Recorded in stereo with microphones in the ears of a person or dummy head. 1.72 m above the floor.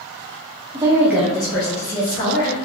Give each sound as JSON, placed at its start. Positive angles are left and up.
{"t": 0.7, "sound": "a woman speaking", "side_deg": -20, "distance_m": 0.8}